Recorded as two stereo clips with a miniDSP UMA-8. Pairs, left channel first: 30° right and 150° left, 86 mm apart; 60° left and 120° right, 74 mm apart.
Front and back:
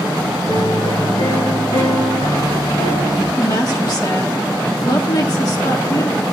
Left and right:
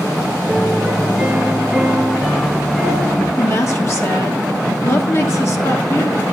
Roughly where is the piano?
Ahead right.